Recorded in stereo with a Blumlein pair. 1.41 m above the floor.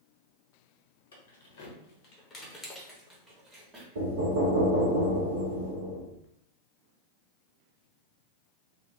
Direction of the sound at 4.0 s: 65° right.